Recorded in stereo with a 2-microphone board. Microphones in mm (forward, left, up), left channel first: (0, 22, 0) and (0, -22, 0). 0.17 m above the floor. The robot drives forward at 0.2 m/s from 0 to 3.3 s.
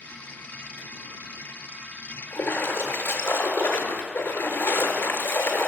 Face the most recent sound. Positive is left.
turn(degrees=75)  # may be behind; listen again after turning